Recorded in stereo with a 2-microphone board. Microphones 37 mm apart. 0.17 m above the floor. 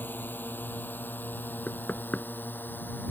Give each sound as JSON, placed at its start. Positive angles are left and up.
{"t": 0.0, "sound": "a drone", "side_deg": 75}
{"t": 1.7, "sound": "knocking", "side_deg": 40}